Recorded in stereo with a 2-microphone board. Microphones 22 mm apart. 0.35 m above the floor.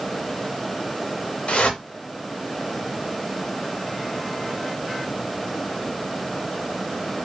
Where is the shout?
I don't hear a shout.